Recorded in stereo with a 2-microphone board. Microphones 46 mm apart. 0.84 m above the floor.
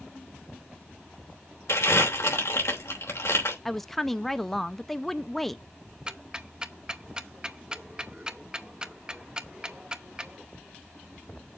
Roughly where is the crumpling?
Left.